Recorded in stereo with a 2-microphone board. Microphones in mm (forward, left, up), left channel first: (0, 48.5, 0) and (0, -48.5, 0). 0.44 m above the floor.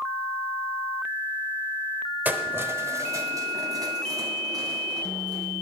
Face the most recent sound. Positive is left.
turn(degrees=-40)  # may be behind; listen again after turning